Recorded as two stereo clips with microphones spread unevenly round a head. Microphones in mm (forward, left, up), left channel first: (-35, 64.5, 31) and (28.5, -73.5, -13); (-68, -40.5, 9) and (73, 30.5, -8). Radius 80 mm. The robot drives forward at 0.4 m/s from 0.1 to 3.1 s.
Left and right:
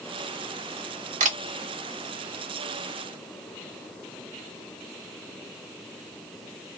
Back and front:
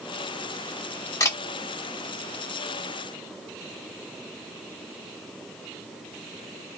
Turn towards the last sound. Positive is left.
turn(degrees=-120)